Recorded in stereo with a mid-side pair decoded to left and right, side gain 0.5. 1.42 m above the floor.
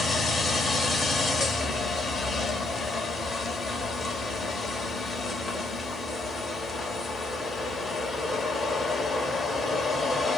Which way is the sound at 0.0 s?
35° left.